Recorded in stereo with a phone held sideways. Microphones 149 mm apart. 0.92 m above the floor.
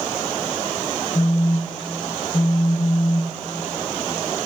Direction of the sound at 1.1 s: 35° left (ahead or behind).